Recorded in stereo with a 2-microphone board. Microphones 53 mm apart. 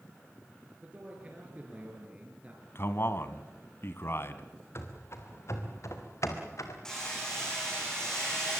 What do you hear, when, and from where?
0.8 s a man speaking: 25° right (ahead or behind), 5 m
2.8 s a man speaking: 50° left (ahead or behind), 1.6 m
4.8 s running footsteps: 55° left (ahead or behind), 3.5 m; by 6.8 s 75° left (ahead or behind), 3.5 m
6.8 s hammering: 10° left (ahead or behind), 9.5 m